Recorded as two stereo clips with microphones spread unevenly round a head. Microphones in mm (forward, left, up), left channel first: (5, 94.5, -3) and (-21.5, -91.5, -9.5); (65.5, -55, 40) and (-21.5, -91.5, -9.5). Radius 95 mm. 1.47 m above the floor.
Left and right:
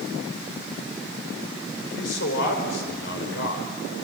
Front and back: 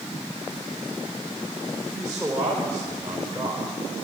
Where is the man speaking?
115° left, 5 m.